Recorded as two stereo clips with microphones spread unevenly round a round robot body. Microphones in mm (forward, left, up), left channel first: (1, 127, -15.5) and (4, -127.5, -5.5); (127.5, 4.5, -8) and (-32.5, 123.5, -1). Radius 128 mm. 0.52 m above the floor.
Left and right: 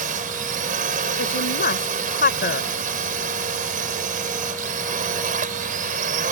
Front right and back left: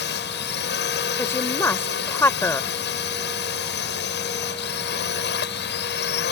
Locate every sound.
0.0 s a drone: 35° right
1.2 s a woman speaking: 40° left